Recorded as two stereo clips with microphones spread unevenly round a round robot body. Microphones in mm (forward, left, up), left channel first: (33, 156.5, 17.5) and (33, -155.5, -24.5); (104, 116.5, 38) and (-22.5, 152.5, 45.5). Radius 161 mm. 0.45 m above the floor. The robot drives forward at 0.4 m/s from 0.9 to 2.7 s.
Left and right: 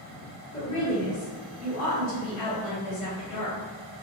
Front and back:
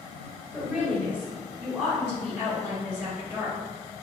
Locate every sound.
0.5 s a woman speaking: 65° left, 2.0 m; by 3.6 s 90° left, 1.8 m